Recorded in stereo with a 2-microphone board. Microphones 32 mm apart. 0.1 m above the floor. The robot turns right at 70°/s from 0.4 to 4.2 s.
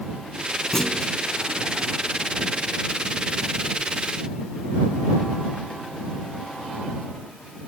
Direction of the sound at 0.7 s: 15° left (ahead or behind).